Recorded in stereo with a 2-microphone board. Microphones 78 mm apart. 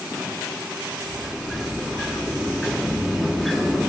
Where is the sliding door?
Centre (ahead or behind), 0.9 m.